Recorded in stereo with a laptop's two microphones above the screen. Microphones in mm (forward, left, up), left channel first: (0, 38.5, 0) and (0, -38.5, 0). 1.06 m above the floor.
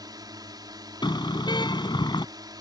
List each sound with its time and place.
0.0 s a drone: 60° right (ahead or behind)
1.0 s a car horn: 70° left (ahead or behind)